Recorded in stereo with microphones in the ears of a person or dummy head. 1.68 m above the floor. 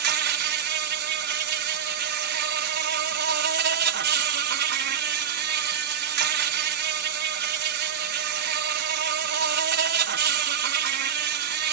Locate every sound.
0.0 s an insect: 55° right (ahead or behind)